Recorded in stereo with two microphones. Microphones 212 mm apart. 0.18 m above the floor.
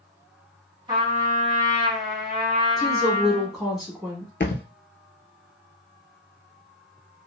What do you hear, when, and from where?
0.9 s a trumpet: 25° right (ahead or behind), 1.6 m
2.8 s a woman speaking: centre (ahead or behind), 1.6 m
4.4 s a thud: 60° left (ahead or behind), 0.7 m